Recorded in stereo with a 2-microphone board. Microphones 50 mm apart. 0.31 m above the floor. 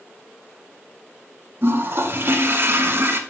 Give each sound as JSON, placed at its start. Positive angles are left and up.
{"t": 1.6, "sound": "a toilet flushing", "side_deg": -55, "distance_m": 1.3}